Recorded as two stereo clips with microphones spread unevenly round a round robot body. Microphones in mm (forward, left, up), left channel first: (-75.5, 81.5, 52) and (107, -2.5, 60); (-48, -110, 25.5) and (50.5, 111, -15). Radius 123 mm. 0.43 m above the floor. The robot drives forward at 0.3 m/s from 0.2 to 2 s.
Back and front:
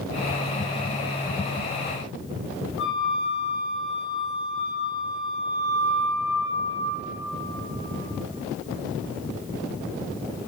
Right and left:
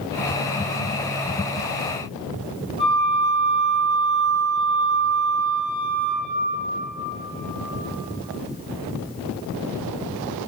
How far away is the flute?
About 2 m.